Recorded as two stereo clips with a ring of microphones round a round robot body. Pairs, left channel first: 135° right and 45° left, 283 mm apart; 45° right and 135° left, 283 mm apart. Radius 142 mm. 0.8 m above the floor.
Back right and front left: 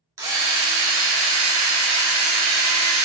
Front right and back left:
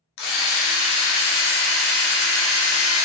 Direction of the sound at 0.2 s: 35° right.